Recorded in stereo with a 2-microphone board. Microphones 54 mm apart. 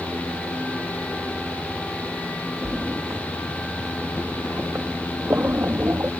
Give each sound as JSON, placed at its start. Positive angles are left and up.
{"t": 2.6, "sound": "a splash", "side_deg": -50}